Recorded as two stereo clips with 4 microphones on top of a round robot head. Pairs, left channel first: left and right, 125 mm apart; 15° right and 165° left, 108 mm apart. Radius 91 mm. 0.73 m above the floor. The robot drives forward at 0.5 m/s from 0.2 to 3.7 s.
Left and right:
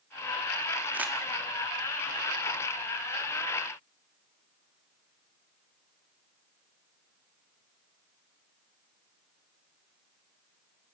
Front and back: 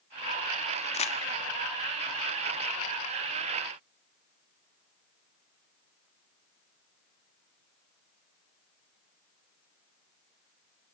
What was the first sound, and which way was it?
Crumpling, 10° right.